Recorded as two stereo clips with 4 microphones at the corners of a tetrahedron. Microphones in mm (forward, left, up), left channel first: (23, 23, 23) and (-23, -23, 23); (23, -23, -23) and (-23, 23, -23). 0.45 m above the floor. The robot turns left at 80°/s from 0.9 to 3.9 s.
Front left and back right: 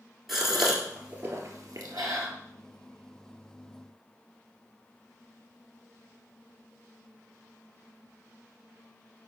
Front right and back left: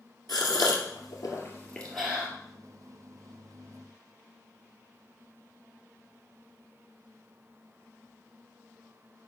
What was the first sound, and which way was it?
A gasp, 50° right.